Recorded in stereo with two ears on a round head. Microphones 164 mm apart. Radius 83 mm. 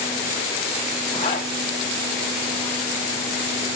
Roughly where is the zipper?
Left.